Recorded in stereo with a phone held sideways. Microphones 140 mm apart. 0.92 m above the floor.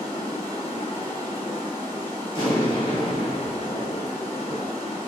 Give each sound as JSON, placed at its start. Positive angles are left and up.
{"t": 0.0, "sound": "running water", "side_deg": 60, "distance_m": 1.5}
{"t": 2.3, "sound": "an explosion", "side_deg": 35, "distance_m": 1.1}